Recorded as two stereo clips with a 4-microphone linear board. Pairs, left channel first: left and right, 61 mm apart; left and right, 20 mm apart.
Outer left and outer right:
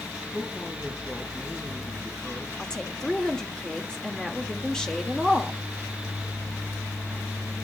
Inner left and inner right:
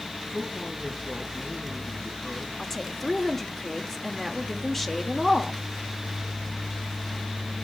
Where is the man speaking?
35° left (ahead or behind), 3.5 m.